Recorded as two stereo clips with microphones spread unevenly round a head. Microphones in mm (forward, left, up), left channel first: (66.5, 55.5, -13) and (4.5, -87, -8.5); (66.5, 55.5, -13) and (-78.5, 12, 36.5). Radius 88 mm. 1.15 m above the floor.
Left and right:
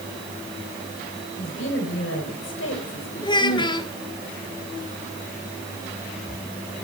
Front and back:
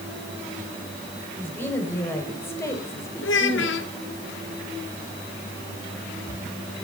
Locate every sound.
1.4 s a woman speaking: 95° left, 5.5 m; by 3.8 s 85° left, 3.5 m
3.2 s a child speaking: 5° left, 2 m